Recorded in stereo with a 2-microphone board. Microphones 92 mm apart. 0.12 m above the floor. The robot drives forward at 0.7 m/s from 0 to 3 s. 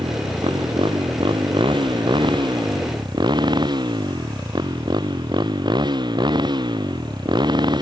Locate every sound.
0.0 s a motorcycle: 80° right; by 7.8 s 60° right (ahead or behind)